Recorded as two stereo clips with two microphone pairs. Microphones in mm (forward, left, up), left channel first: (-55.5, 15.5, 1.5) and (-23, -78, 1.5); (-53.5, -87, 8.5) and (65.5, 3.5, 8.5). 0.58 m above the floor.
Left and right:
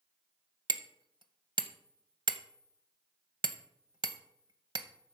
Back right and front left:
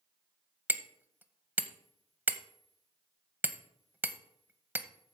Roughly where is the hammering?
Ahead right.